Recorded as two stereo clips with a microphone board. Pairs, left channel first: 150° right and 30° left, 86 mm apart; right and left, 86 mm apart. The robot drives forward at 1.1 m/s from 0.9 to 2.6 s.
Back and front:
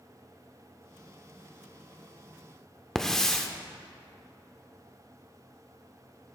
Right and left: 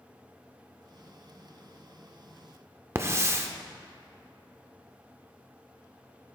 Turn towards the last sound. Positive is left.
turn(degrees=130)